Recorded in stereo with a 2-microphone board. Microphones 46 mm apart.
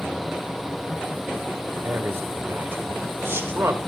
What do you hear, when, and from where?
1.8 s a man speaking: 65° right (ahead or behind), 2.5 m